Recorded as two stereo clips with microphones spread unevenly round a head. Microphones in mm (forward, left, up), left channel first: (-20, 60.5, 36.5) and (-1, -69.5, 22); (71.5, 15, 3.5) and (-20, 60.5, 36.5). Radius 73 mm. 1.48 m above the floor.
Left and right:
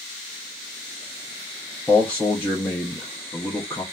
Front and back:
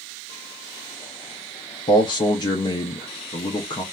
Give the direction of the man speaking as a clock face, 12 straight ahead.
11 o'clock.